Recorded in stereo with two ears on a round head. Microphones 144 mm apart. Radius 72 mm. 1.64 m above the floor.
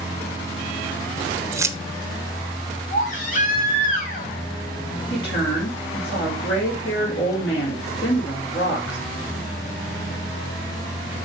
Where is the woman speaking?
80° left, 5 m.